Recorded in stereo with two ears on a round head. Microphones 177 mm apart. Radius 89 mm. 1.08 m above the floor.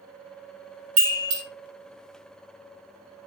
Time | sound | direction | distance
1.0 | a chime | 70° right (ahead or behind) | 1.4 m